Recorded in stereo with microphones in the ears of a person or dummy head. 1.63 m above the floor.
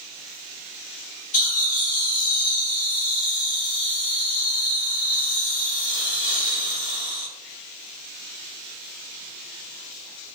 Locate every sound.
1.3 s laughter: 80° left, 1.2 m